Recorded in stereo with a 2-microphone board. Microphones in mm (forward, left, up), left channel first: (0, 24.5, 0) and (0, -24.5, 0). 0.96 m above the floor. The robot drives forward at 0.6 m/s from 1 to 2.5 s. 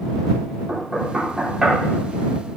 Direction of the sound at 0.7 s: 10° right (ahead or behind).